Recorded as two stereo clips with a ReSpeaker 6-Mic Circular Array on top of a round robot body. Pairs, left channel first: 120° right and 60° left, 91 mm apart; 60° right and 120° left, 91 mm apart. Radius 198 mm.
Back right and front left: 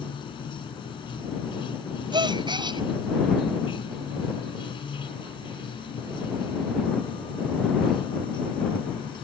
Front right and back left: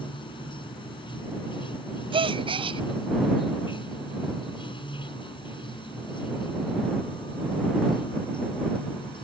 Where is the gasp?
95° left.